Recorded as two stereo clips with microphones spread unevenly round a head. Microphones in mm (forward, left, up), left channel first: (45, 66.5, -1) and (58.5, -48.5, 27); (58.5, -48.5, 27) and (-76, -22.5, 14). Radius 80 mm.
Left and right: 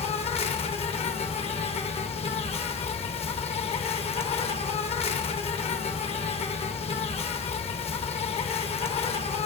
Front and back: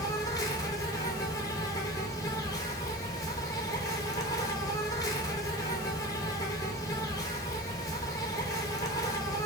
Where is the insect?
55° left, 0.7 m.